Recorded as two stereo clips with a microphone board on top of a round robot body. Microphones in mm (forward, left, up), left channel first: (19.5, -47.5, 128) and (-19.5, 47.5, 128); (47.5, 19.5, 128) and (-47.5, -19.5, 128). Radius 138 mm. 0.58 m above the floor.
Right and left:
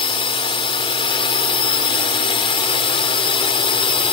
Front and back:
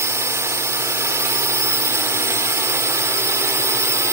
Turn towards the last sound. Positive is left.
turn(degrees=-95)